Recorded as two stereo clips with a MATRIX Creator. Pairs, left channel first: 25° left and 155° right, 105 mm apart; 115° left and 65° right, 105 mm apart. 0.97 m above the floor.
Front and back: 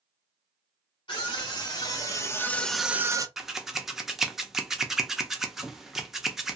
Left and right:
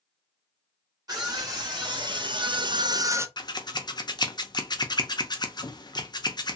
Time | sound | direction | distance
1.1 | a scream | 20° right | 1.5 m
3.4 | scissors | 120° left | 0.5 m